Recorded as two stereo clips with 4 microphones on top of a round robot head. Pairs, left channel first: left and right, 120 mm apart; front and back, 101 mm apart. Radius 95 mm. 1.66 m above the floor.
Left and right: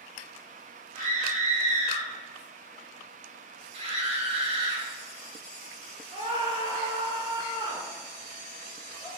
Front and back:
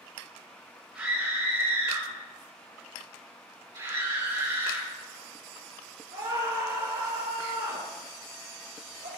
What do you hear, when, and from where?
0.9 s a scream: 100° right, 3.5 m; by 9.1 s 150° right, 8 m